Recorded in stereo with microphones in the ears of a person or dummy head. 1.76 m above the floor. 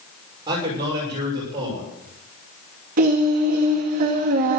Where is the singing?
40° right (ahead or behind), 2 m.